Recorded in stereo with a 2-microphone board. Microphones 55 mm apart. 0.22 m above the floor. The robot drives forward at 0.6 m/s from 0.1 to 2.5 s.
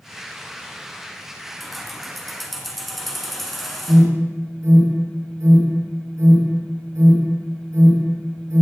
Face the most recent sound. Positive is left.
turn(degrees=-65)  # may be behind; listen again after turning